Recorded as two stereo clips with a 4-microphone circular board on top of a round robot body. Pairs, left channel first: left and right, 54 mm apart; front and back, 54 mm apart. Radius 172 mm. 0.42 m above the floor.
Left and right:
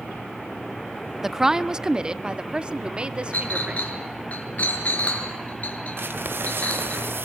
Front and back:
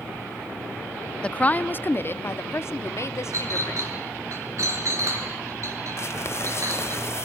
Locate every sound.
1.2 s a woman speaking: 20° right, 0.9 m
3.3 s a clink: 155° left, 6 m
6.0 s crumpling: 40° right, 1.4 m